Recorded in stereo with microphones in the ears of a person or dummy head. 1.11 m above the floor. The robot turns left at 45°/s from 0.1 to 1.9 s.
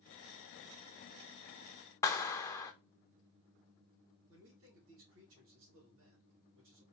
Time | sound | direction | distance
2.0 | a clap | 15° left (ahead or behind) | 0.7 m
4.3 | a man speaking | 75° right (ahead or behind) | 2 m